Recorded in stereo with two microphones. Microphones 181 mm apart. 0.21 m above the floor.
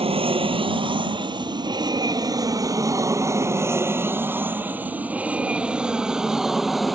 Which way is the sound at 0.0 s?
30° right (ahead or behind).